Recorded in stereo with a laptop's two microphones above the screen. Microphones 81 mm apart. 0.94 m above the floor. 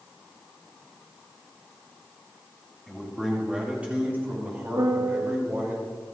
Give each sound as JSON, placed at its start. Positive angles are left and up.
{"t": 2.9, "sound": "a man speaking", "side_deg": 0, "distance_m": 2.0}
{"t": 4.8, "sound": "a piano", "side_deg": -70, "distance_m": 0.6}